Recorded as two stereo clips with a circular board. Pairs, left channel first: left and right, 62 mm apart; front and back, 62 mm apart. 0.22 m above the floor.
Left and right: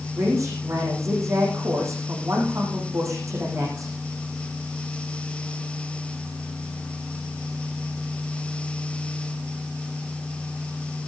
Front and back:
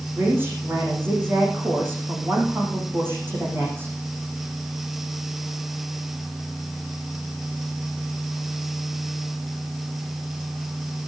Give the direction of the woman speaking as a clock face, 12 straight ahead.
4 o'clock.